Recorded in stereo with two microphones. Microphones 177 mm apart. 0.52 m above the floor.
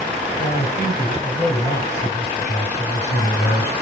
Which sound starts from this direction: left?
A man speaking, at 0.4 s.